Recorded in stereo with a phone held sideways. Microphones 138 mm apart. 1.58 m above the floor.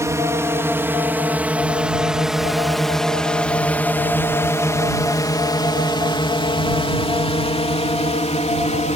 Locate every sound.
0.0 s a drone: 20° right (ahead or behind); by 9.0 s 55° left (ahead or behind)